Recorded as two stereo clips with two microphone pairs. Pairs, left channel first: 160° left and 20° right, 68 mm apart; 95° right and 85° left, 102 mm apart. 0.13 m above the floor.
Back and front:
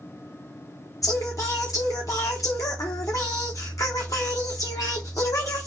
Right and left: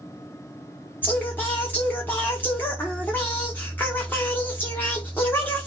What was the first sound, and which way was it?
Singing, 165° right.